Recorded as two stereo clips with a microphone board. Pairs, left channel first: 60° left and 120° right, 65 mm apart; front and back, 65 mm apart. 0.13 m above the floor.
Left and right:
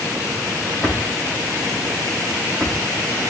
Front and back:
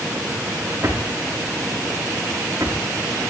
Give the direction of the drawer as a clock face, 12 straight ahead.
8 o'clock.